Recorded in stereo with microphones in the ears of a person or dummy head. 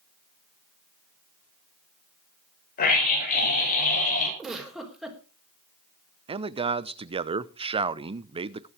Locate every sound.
2.8 s a scream: 45° left (ahead or behind), 7.5 m
4.4 s a giggle: centre (ahead or behind), 3.5 m
6.3 s a man speaking: 25° right (ahead or behind), 0.7 m